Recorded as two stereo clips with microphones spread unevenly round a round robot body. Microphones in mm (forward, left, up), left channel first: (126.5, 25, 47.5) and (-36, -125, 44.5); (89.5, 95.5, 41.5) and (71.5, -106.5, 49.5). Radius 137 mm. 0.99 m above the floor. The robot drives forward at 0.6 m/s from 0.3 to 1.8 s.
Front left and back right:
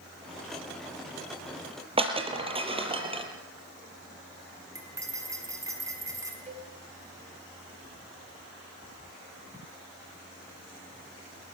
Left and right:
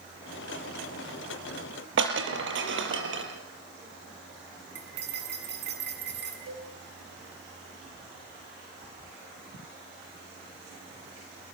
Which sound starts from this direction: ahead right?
Cutlery clinking, at 4.8 s.